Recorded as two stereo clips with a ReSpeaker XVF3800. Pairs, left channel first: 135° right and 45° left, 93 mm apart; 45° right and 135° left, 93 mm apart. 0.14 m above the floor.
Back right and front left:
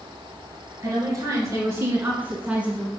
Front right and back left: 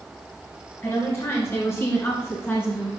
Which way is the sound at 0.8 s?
5° left.